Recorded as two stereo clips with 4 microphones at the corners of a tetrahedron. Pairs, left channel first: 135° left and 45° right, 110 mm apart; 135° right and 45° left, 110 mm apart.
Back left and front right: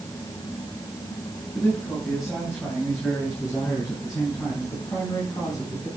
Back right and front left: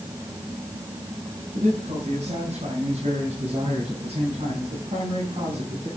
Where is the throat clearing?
I don't hear throat clearing.